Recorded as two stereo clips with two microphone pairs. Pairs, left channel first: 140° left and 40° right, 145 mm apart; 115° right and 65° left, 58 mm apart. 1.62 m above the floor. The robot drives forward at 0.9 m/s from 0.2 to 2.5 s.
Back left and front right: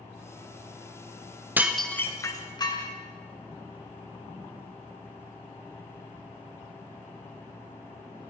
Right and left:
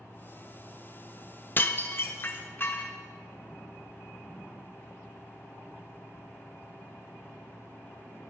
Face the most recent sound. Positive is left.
turn(degrees=-160)